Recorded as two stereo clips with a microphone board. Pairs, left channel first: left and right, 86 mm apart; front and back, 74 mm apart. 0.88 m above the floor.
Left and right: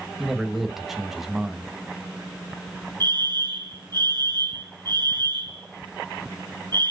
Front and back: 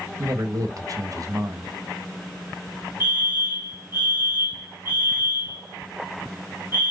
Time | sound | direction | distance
0.2 | a man speaking | 175° right | 1.3 m
3.0 | a fire alarm | 120° right | 4 m